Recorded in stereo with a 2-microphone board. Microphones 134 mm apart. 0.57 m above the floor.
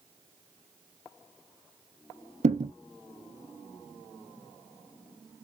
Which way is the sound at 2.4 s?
60° right (ahead or behind).